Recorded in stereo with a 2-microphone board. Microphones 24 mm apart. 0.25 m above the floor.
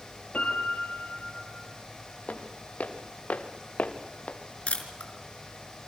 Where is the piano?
60° left (ahead or behind), 6 m.